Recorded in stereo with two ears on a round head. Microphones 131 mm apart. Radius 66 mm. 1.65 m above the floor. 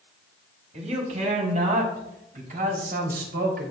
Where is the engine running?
No engine running in this recording.